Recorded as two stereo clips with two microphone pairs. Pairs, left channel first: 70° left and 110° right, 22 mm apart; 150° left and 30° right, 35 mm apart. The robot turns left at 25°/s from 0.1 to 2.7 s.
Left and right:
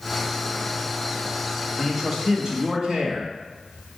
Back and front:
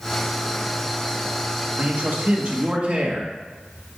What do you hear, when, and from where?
1.8 s a man speaking: 35° right, 1.5 m; by 3.3 s 60° right, 1.5 m